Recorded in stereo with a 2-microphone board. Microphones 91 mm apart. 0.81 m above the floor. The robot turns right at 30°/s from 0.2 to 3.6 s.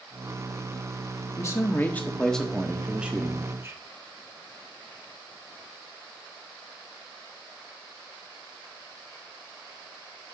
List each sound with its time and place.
1.4 s a man speaking: 145° left, 1.1 m; by 3.8 s 150° right, 1.1 m